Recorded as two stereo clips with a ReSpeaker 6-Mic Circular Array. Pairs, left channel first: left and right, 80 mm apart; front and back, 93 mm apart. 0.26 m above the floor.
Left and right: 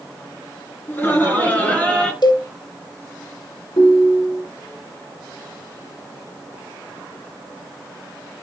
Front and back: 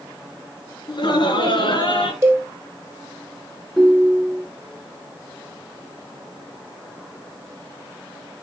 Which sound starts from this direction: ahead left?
Laughter, at 0.9 s.